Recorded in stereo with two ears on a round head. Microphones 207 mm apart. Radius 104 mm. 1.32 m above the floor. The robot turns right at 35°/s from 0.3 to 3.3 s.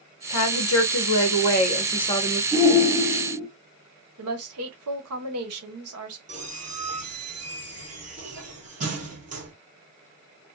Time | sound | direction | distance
0.3 | a woman speaking | 95° left | 0.9 m
2.5 | a shout | 25° right (ahead or behind) | 2.0 m
4.2 | a woman speaking | 65° right (ahead or behind) | 1.0 m
6.3 | a squeak | 35° right (ahead or behind) | 1.6 m